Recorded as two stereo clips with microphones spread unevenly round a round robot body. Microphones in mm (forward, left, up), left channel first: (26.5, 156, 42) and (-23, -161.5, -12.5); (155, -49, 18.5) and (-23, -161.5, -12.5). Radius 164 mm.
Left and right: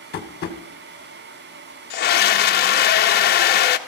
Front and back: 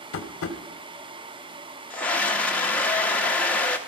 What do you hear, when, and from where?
0.1 s tapping: 20° left, 1.6 m
1.9 s a scream: 130° left, 0.7 m